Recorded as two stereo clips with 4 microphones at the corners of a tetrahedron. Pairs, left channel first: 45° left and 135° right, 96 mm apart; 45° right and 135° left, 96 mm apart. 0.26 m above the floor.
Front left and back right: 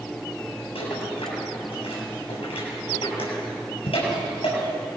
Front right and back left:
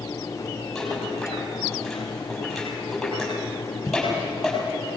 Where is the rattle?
45° left, 7 m.